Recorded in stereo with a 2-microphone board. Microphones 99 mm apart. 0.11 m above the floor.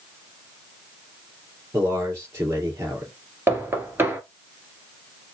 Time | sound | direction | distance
1.7 | a man speaking | 30° right (ahead or behind) | 3 m
3.5 | knocking | 25° right (ahead or behind) | 1.8 m